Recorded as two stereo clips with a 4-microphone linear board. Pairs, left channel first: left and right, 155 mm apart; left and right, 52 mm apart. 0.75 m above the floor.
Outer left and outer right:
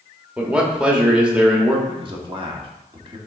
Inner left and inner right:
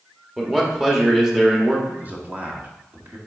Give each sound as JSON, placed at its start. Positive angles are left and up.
{"t": 0.4, "sound": "a man speaking", "side_deg": -5, "distance_m": 1.5}
{"t": 1.9, "sound": "a man speaking", "side_deg": -30, "distance_m": 1.4}